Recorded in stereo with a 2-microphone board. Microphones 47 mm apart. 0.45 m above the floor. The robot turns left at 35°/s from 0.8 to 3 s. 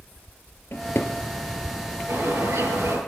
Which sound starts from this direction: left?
A drawer, at 0.7 s.